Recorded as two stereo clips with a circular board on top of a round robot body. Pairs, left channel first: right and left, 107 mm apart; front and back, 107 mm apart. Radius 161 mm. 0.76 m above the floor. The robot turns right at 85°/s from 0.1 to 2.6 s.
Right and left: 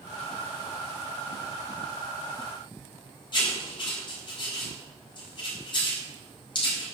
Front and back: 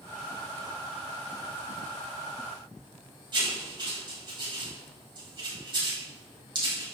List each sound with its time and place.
3.3 s writing: 135° right, 4.5 m